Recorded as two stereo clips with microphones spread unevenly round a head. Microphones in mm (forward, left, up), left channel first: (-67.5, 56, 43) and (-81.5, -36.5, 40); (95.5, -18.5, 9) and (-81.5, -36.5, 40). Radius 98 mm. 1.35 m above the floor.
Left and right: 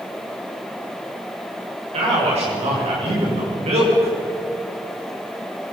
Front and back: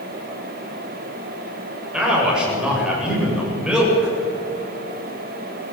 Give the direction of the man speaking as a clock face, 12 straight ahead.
3 o'clock.